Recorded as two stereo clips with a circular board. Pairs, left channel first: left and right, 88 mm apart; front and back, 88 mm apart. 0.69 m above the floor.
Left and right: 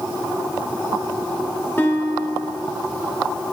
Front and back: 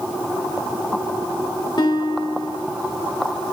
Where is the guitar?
30° left, 2 m.